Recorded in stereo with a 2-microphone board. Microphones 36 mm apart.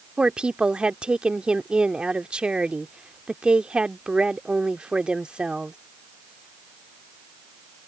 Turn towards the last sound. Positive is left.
turn(degrees=-30)  # may be behind; listen again after turning